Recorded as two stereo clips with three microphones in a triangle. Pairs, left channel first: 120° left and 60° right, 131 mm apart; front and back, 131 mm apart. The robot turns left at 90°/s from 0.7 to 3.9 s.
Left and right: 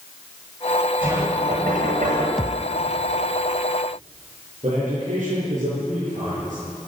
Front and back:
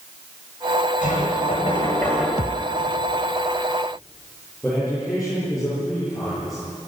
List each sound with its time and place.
1.0 s knocking: 15° left, 9 m; by 2.3 s 100° right, 9 m
2.4 s a thud: 30° left, 0.8 m; by 2.8 s straight ahead, 0.8 m
4.6 s a man speaking: 90° right, 9.5 m